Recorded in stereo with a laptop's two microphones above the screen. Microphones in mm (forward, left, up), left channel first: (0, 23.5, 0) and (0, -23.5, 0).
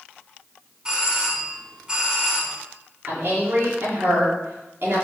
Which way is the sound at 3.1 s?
55° right (ahead or behind).